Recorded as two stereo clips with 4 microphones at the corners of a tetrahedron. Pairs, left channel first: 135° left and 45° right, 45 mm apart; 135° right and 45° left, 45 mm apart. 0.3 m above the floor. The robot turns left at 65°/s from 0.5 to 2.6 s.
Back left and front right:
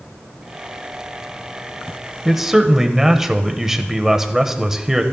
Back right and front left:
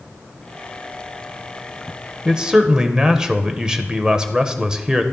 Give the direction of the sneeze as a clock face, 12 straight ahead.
I don't hear a sneeze.